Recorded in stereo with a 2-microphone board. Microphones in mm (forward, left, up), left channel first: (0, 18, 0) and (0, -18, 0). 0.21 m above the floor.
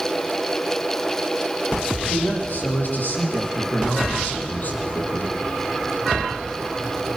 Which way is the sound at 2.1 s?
65° left (ahead or behind).